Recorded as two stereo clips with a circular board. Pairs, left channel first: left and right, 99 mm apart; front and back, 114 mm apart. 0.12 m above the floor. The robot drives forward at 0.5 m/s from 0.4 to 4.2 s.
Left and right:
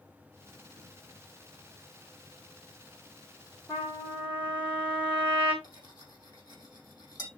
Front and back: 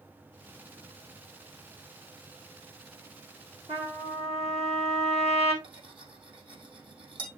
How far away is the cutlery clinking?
About 3 m.